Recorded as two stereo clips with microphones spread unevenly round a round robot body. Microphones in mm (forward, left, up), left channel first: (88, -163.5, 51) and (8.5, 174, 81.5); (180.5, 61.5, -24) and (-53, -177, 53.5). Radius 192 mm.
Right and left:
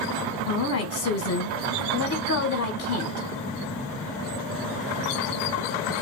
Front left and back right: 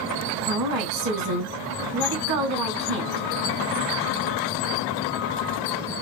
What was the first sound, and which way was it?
A woman speaking, 100° right.